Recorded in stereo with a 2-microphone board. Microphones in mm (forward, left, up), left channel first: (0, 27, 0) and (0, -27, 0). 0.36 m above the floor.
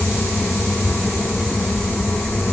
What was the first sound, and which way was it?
Only background noise.